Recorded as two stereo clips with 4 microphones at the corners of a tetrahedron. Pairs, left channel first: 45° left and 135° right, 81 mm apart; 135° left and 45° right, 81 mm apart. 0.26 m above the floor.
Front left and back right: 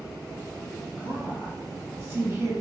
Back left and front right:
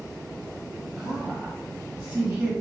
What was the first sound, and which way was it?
A woman speaking, 90° right.